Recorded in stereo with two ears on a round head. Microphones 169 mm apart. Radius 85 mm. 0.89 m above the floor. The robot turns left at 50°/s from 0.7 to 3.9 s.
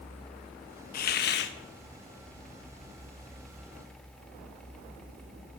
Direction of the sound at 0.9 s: 125° left.